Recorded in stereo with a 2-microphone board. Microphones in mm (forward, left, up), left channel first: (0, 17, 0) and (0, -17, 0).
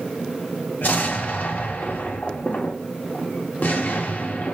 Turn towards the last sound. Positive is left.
turn(degrees=60)  # may be behind; listen again after turning